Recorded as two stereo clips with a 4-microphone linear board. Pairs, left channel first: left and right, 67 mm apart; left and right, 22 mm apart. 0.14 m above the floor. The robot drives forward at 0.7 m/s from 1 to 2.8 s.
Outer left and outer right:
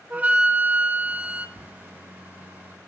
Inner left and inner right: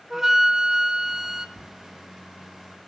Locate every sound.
0.1 s a flute: 25° right (ahead or behind), 0.6 m; by 1.5 s 20° right (ahead or behind), 0.7 m
1.6 s writing: 15° right (ahead or behind), 0.8 m